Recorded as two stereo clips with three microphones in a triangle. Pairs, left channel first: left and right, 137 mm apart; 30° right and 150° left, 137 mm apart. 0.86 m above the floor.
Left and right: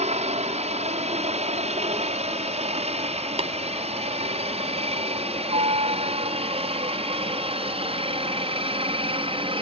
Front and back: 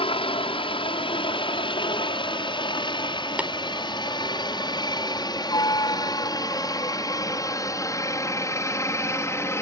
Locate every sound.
0.0 s a helicopter: 70° right; by 9.6 s 90° right
3.4 s tapping: 130° right